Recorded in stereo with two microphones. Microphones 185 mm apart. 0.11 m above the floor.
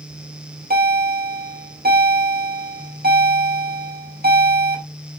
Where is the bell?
55° right (ahead or behind), 2 m.